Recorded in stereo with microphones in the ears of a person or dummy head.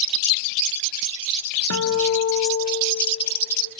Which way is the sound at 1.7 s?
85° left.